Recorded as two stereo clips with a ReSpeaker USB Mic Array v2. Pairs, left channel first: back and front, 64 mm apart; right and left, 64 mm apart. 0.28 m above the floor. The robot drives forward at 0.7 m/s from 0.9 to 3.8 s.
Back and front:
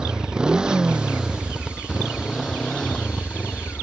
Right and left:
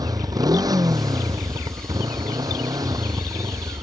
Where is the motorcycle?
80° left; by 3.8 s 110° left.